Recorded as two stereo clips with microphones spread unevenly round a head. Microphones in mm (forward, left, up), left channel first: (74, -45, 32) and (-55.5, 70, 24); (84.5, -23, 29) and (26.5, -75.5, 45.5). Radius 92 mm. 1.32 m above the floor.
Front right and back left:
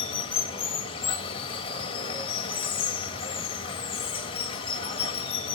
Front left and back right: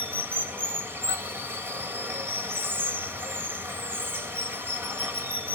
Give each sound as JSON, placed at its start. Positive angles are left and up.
{"t": 0.0, "sound": "running water", "azimuth_deg": -95, "distance_m": 1.6}